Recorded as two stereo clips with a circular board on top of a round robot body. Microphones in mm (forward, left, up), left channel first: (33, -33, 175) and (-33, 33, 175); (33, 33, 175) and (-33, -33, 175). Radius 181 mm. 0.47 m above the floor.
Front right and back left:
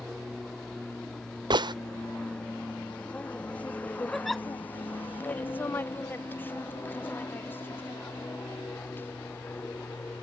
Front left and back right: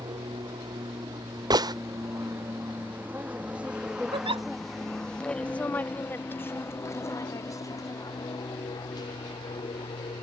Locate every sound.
0.0 s an aircraft: 130° right; by 10.2 s 20° left
1.5 s a gunshot: 175° left
4.1 s a giggle: 135° right